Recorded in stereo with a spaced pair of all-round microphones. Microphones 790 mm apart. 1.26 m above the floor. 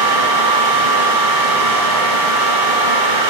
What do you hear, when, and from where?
0.0 s a fan: 75° right (ahead or behind), 1.2 m